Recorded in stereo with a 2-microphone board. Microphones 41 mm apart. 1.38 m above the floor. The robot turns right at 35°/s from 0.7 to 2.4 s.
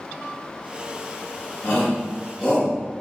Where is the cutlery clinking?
I don't hear cutlery clinking.